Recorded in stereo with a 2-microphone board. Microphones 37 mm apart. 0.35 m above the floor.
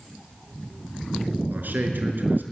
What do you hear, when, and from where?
1.5 s a man speaking: 70° right (ahead or behind), 4.5 m